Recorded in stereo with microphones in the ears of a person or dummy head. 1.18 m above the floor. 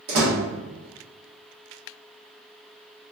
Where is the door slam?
65° right (ahead or behind), 1.1 m.